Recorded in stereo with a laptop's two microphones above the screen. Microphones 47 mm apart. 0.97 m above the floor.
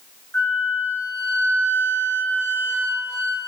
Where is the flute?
65° left (ahead or behind), 0.6 m.